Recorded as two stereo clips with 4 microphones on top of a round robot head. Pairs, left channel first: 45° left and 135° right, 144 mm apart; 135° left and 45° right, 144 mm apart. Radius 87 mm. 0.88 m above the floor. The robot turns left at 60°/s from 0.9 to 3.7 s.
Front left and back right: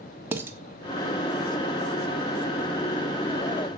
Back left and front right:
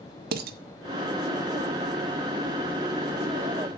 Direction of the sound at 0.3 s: 60° right.